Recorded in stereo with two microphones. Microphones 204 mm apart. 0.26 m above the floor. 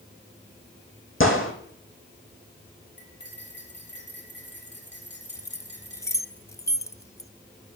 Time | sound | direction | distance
1.2 | a gunshot | 80° left | 2.5 m
3.0 | cutlery clinking | 60° left (ahead or behind) | 4 m
5.3 | keys jangling | 15° left (ahead or behind) | 0.8 m